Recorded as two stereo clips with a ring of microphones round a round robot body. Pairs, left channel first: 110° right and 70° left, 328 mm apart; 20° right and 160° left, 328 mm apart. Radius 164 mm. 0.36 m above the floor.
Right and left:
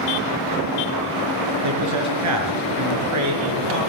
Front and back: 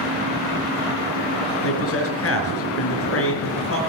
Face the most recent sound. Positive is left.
turn(degrees=30)